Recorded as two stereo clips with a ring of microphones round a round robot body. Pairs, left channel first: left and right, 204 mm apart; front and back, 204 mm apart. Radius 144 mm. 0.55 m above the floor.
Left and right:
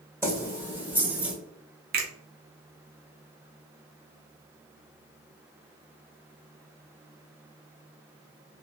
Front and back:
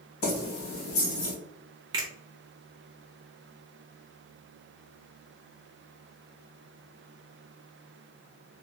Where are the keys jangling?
15° right, 2.0 m; by 1.4 s 5° right, 1.3 m.